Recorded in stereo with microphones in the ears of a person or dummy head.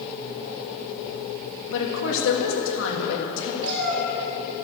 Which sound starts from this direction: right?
A cat meowing, at 3.6 s.